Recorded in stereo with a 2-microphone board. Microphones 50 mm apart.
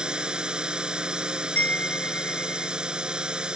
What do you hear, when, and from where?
0.0 s a drone: 20° right (ahead or behind)
1.6 s a chime: 35° left (ahead or behind)